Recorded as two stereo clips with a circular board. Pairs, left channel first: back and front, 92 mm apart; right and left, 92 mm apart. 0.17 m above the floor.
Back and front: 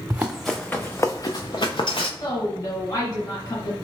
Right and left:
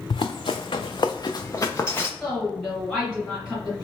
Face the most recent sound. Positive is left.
turn(degrees=-165)